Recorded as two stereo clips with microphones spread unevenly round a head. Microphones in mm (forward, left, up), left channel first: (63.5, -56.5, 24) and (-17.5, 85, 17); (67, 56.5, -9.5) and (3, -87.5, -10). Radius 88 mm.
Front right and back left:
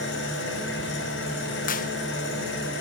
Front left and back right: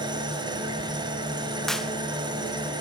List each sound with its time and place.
0.0 s an engine running: 50° right, 5.5 m
1.7 s a clap: 20° right, 0.8 m